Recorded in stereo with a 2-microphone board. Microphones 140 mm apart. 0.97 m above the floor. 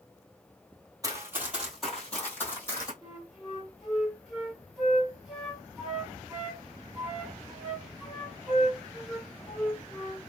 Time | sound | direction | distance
1.0 | running footsteps | 25° right (ahead or behind) | 1.4 m
3.0 | a flute | centre (ahead or behind) | 2.0 m